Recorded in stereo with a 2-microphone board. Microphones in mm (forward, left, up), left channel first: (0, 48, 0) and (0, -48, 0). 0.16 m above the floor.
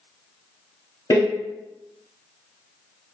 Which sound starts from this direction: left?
A door slam, at 1.1 s.